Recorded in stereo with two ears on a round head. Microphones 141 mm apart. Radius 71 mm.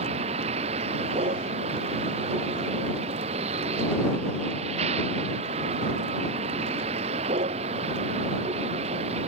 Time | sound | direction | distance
0.0 | a vehicle | 40° right (ahead or behind) | ?